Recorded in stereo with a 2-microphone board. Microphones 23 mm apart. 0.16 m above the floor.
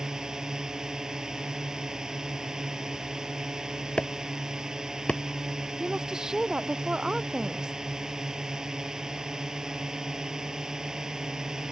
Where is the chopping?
50° left (ahead or behind).